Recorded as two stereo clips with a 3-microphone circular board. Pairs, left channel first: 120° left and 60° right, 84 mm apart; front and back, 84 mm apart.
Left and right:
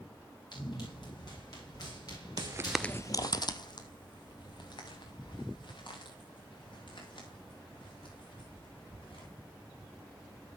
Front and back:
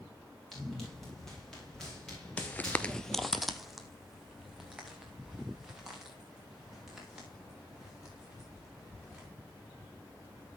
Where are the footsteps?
70° right, 0.6 m; by 9.3 s 95° left, 8 m.